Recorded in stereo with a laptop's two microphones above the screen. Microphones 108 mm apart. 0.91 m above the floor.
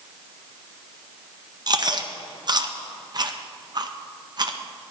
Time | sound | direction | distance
1.7 | chewing | 40° right (ahead or behind) | 0.7 m